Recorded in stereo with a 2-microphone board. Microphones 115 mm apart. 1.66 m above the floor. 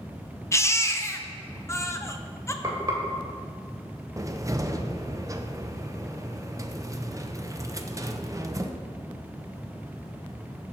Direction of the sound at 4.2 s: 30° right (ahead or behind).